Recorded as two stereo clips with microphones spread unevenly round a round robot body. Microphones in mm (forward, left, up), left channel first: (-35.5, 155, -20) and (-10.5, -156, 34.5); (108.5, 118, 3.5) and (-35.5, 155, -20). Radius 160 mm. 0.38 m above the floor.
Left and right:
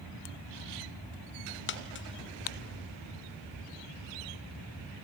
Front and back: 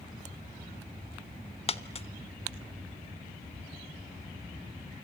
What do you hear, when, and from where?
1.7 s a dropped coin: 40° left, 1.2 m